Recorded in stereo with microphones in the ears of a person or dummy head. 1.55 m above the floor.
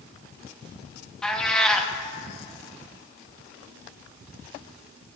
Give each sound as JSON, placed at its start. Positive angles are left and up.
{"t": 1.2, "sound": "a cat meowing", "side_deg": 5, "distance_m": 1.2}